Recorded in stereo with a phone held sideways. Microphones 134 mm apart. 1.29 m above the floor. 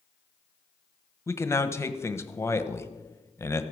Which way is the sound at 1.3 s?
20° left (ahead or behind).